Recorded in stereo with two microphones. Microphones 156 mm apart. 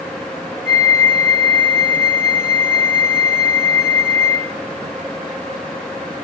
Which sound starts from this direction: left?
A flute, at 0.7 s.